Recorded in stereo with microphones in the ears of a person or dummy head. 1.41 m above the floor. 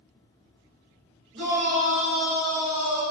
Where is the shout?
50° right (ahead or behind), 1.5 m; by 3.0 s 70° right (ahead or behind), 2.5 m.